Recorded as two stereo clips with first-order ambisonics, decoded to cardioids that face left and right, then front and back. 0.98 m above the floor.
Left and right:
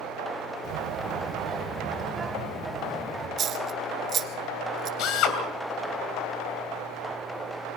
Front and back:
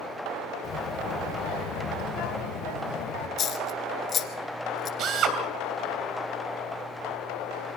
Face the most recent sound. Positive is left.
turn(degrees=130)